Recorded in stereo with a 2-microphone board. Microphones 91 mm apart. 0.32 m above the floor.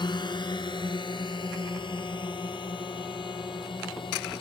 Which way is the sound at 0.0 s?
60° left (ahead or behind).